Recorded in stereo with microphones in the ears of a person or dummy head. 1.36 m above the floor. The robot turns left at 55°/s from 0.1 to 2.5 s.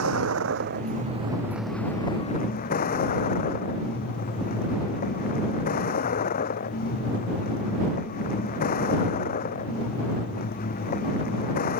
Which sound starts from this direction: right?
A vehicle, at 0.0 s.